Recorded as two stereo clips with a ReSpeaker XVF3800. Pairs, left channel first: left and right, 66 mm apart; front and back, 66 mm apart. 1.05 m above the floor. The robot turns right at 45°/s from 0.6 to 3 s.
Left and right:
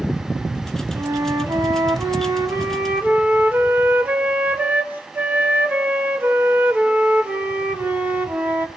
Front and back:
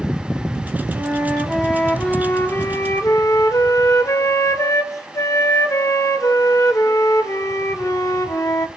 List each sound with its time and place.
0.9 s a flute: 125° right, 1.4 m; by 8.7 s 30° right, 1.4 m